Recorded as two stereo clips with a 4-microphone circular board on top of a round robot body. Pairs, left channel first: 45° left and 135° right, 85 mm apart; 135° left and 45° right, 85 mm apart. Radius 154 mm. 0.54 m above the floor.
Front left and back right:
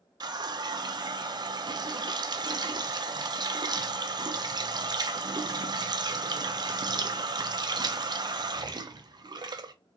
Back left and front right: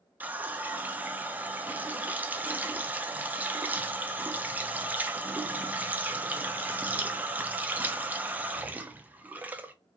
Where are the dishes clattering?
No dishes clattering in this recording.